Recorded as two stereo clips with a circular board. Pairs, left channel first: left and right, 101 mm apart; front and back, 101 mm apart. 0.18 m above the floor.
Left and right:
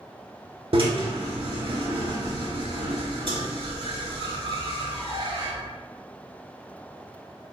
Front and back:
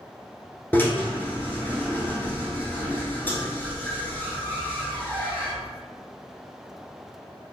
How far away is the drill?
About 0.9 m.